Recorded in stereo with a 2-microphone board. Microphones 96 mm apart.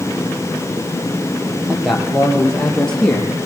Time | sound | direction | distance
1.7 | a man speaking | 5° right (ahead or behind) | 6 m